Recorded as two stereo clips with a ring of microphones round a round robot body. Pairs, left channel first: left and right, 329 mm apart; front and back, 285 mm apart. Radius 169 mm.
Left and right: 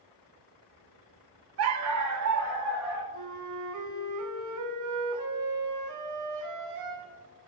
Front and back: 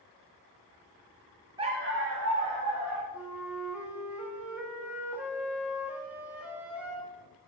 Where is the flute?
95° right, 1.2 m.